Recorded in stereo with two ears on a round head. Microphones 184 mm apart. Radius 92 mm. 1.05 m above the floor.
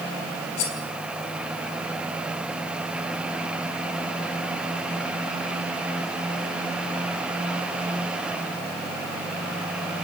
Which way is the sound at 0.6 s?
85° left.